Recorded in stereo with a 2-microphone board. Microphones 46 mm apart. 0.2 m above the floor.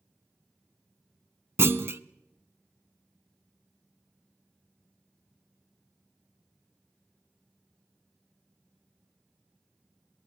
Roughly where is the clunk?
Right.